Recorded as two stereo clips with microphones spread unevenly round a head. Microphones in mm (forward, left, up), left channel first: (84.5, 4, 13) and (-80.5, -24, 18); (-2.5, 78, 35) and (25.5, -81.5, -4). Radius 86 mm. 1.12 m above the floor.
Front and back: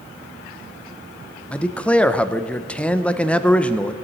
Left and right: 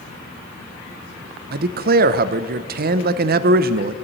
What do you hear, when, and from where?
1.5 s a man speaking: 70° right, 0.6 m